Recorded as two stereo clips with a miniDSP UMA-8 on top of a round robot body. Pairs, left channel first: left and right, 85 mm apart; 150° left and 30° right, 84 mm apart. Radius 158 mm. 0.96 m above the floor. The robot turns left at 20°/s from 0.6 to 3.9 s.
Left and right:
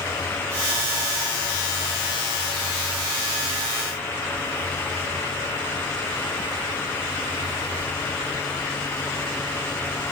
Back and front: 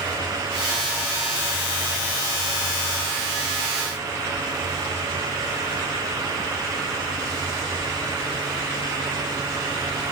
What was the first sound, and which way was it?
Only background noise.